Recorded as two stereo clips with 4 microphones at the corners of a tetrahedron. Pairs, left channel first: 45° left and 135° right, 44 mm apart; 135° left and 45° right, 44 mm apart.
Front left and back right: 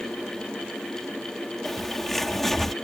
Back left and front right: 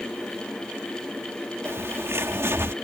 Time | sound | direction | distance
1.6 | a bird | 40° right | ?